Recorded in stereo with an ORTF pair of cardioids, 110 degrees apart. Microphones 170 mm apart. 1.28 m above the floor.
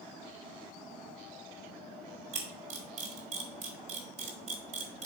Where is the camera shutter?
45° right, 2.5 m.